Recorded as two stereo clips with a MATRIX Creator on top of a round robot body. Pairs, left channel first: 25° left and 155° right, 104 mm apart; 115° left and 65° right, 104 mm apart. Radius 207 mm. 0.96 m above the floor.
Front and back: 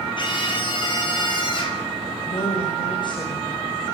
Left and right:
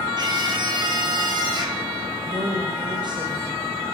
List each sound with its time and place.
0.2 s a scream: 20° right, 9.5 m
2.2 s a woman speaking: 20° right, 6 m